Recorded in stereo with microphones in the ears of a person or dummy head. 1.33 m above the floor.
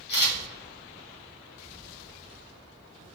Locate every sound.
0.1 s a camera shutter: 60° left (ahead or behind), 1.8 m